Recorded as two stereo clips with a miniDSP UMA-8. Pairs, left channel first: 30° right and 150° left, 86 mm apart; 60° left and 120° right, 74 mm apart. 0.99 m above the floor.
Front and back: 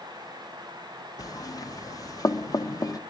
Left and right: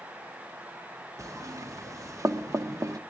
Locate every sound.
1.2 s knocking: 75° right, 0.8 m